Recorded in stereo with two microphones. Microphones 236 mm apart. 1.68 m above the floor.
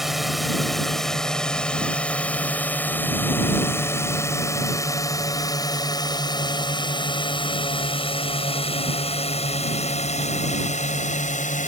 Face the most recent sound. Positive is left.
turn(degrees=35)  # may be behind; listen again after turning